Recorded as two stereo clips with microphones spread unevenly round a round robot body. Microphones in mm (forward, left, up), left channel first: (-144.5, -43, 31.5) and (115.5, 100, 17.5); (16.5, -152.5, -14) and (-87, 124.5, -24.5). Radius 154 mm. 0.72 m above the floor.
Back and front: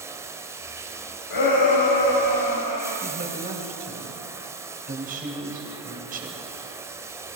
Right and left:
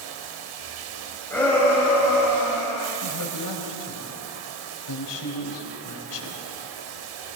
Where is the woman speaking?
35° right, 3.5 m.